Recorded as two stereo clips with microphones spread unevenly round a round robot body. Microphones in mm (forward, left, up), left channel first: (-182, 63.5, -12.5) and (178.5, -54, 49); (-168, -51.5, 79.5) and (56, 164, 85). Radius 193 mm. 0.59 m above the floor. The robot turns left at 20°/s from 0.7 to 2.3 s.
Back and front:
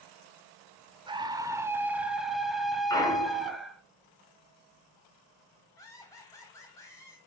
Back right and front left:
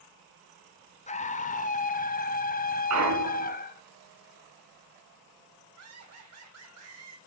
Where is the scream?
100° right, 0.6 m; by 3.8 s 125° right, 0.6 m.